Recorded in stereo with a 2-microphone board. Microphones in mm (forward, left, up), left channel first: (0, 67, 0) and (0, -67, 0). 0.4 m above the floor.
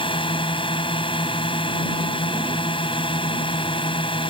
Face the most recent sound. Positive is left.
turn(degrees=40)  # may be behind; listen again after turning